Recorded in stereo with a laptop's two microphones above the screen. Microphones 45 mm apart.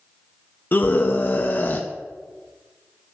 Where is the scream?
40° left (ahead or behind), 0.6 m.